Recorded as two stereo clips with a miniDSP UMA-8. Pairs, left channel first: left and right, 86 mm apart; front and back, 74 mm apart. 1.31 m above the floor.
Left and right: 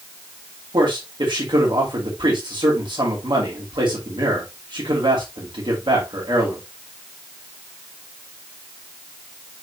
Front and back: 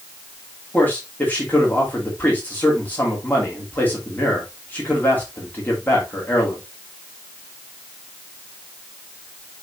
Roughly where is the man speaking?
Ahead right.